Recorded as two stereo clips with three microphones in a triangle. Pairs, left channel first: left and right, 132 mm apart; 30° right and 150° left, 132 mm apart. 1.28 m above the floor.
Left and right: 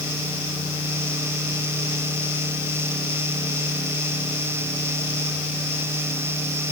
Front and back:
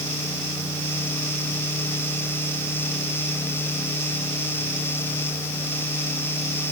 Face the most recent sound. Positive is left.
No sound to turn to.